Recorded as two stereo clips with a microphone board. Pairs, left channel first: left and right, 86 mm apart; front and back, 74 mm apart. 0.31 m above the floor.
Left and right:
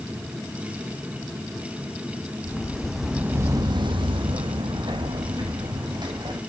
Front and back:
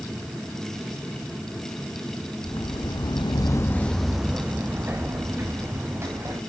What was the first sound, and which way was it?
Footsteps, 15° left.